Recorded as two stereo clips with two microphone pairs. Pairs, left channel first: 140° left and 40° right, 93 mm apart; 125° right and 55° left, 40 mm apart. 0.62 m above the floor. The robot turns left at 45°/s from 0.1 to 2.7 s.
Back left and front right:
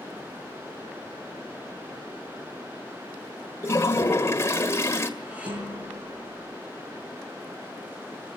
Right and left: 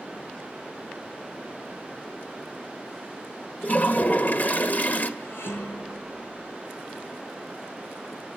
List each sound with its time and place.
3.6 s a toilet flushing: 160° right, 1.8 m
5.2 s dishes clattering: 115° right, 8.5 m